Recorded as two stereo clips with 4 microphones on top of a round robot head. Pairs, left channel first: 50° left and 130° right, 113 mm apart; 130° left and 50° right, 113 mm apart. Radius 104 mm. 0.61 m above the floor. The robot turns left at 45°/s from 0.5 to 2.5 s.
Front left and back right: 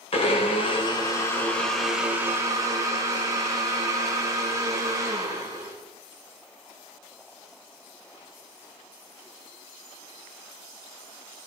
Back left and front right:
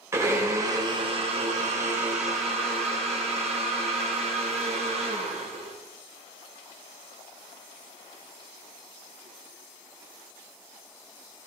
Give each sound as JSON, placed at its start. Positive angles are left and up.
{"t": 0.1, "sound": "a blender", "azimuth_deg": 20, "distance_m": 3.5}